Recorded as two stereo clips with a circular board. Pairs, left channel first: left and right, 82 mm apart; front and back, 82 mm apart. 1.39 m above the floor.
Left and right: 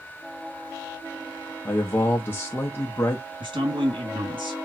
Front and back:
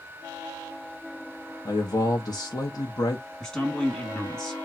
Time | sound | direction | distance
1.6 | a man speaking | 30° left | 1.0 m
3.4 | a man speaking | 85° right | 2 m